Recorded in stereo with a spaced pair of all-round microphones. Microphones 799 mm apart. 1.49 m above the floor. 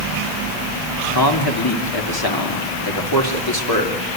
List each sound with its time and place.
1.1 s a man speaking: 25° left (ahead or behind), 3 m